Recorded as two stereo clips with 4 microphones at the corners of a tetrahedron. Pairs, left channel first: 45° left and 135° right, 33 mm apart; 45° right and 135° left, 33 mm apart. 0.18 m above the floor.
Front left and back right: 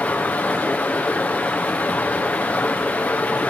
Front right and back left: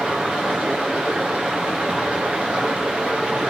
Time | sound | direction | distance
0.0 | running water | 75° left | 2.5 m